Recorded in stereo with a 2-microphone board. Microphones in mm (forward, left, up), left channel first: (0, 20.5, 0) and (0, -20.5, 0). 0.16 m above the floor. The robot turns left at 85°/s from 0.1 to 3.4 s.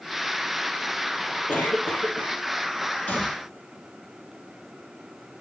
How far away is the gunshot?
About 2.5 m.